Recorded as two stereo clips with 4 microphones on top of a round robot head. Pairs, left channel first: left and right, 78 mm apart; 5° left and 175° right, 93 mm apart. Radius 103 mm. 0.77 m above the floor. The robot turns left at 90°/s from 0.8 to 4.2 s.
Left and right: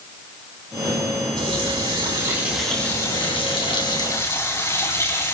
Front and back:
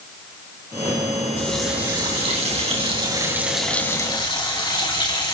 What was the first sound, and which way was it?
A running tap, 65° right.